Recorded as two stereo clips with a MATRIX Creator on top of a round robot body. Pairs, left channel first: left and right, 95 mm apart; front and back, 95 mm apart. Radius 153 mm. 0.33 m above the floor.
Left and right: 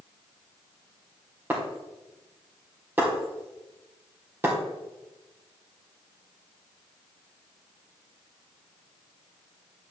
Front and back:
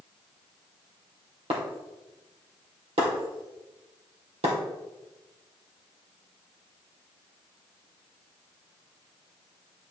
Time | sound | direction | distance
1.5 | breaking glass | 160° right | 2.5 m